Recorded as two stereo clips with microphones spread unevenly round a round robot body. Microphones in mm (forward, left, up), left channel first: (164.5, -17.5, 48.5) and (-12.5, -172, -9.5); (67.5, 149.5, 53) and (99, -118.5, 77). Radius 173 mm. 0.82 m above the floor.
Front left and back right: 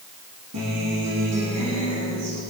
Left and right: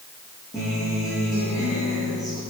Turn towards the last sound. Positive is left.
turn(degrees=180)